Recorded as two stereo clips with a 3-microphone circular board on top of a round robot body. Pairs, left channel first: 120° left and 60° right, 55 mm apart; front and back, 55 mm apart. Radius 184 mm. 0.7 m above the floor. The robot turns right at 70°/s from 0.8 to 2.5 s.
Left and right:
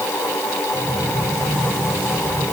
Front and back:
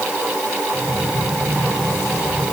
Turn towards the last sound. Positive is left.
No sound to turn to.